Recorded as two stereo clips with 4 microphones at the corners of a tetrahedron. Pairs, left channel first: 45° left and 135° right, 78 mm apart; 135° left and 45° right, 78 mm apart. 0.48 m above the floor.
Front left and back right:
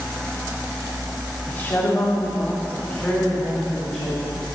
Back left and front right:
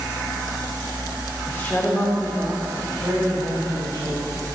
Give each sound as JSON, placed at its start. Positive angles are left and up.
{"t": 1.5, "sound": "a woman speaking", "azimuth_deg": 100, "distance_m": 1.2}